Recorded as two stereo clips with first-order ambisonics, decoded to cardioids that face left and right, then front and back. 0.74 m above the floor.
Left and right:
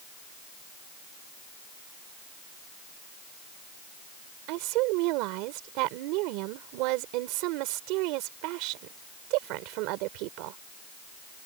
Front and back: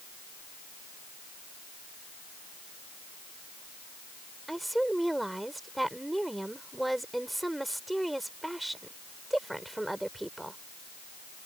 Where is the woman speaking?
95° right.